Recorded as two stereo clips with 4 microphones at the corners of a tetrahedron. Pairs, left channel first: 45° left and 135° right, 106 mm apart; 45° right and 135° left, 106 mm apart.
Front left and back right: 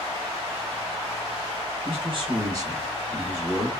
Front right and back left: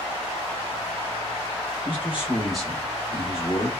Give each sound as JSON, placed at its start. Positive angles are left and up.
{"t": 1.9, "sound": "a man speaking", "azimuth_deg": -150, "distance_m": 1.4}